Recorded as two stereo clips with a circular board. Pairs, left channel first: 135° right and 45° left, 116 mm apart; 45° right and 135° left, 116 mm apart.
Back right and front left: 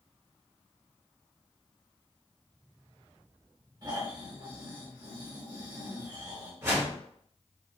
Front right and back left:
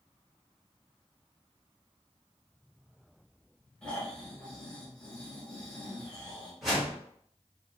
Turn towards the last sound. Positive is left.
turn(degrees=45)